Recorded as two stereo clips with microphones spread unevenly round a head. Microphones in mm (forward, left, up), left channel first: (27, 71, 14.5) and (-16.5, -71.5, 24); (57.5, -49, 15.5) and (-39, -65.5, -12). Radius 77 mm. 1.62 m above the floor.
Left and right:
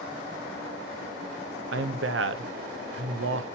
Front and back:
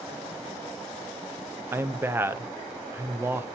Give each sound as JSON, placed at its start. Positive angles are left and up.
{"t": 1.7, "sound": "a man speaking", "azimuth_deg": -100, "distance_m": 0.7}